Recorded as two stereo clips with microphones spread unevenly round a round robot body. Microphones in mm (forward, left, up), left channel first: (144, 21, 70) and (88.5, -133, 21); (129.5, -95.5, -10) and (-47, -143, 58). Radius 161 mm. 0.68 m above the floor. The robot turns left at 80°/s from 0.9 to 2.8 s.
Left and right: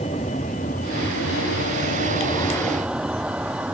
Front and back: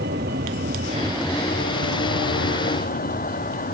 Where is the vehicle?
140° left; by 3.7 s 25° right.